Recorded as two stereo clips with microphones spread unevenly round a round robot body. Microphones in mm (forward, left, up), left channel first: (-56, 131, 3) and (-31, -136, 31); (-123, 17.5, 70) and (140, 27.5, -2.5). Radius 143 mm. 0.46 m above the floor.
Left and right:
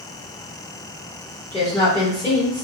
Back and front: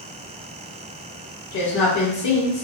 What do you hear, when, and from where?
1.5 s a woman speaking: 170° left, 1.6 m